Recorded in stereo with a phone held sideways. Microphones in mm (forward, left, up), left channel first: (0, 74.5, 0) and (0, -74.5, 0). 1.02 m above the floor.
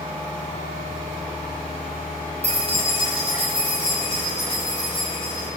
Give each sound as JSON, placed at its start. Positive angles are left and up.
{"t": 2.4, "sound": "keys jangling", "side_deg": -45, "distance_m": 0.7}